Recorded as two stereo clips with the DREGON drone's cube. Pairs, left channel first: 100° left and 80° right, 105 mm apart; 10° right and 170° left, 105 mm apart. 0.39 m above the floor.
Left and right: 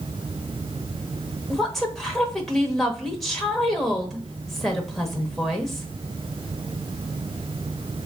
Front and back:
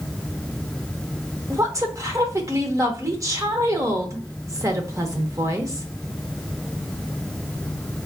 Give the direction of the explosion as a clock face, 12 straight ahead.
No explosion in this recording.